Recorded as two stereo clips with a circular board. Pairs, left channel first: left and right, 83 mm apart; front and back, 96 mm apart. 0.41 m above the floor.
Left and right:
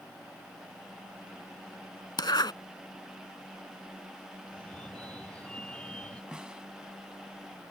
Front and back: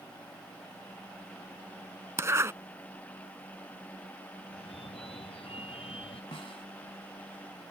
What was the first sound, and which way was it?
A zipper, 120° left.